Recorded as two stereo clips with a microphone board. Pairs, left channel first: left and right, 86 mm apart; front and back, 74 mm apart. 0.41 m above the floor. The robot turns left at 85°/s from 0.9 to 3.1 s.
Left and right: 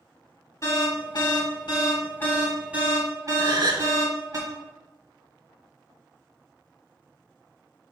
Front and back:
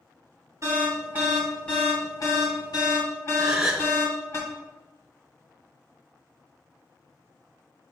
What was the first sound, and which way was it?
An alarm, 140° left.